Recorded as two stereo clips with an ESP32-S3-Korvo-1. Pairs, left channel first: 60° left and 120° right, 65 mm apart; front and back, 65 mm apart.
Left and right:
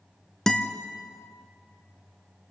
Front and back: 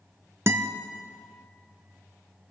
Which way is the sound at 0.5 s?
140° left.